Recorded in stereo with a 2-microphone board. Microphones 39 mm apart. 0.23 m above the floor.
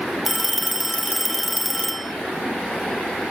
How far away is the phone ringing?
About 1.1 m.